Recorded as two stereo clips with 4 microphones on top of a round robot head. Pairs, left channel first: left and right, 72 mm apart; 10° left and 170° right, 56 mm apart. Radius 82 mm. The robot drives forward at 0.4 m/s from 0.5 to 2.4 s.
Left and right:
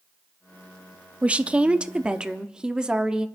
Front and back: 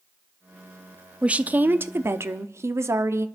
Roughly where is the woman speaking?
Behind right.